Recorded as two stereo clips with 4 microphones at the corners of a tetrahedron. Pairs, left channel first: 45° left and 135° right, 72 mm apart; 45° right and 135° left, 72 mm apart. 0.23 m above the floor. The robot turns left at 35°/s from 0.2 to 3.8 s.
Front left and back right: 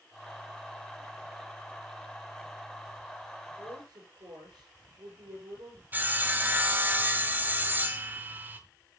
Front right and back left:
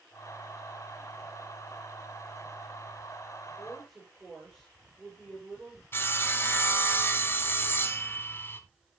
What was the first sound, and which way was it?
A woman speaking, 130° right.